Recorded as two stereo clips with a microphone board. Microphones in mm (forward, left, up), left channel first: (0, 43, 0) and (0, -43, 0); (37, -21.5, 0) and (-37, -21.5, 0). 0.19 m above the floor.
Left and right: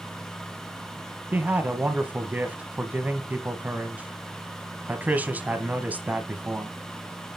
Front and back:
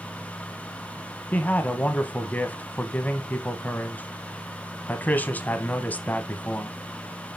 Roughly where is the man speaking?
Ahead right.